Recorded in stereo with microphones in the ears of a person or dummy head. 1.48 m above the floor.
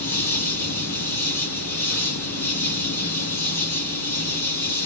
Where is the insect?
10° left (ahead or behind), 2 m.